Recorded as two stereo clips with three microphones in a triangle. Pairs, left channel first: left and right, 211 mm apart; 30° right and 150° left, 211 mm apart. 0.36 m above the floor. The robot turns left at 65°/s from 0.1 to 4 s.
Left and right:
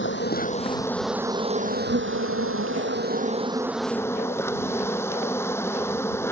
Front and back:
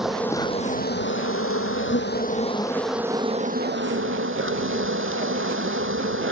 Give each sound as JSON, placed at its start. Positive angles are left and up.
{"t": 0.0, "sound": "an insect", "azimuth_deg": 60}